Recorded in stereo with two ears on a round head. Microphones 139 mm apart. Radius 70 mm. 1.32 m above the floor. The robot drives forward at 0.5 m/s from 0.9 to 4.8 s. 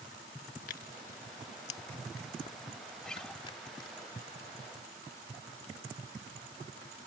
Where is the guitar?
5° left (ahead or behind).